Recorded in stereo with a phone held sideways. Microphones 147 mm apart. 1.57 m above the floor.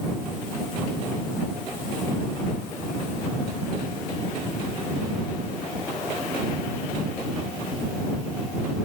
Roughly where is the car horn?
I don't hear a car horn.